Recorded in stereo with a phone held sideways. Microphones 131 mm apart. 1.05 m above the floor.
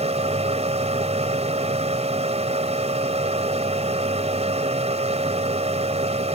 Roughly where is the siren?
I don't hear a siren.